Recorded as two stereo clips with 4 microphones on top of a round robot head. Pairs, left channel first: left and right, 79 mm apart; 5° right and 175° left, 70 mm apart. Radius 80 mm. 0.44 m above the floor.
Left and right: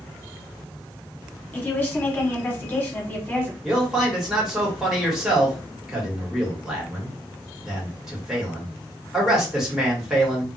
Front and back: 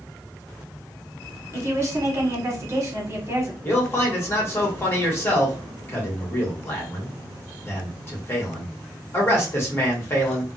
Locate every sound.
1.5 s a woman speaking: 150° left, 1.4 m
3.6 s a man speaking: 10° right, 1.5 m